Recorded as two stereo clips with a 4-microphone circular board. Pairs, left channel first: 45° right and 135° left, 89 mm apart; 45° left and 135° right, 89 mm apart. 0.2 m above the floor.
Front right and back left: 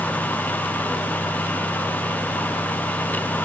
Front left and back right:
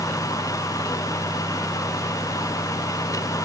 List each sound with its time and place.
Only background noise.